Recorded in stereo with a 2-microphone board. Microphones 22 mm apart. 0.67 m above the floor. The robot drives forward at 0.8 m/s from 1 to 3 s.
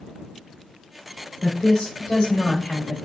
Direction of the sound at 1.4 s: 35° left (ahead or behind).